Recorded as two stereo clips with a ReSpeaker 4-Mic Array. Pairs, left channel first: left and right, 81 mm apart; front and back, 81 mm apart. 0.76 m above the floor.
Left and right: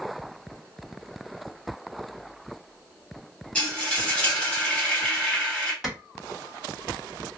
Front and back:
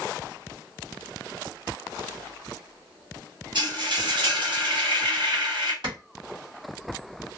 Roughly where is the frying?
Behind.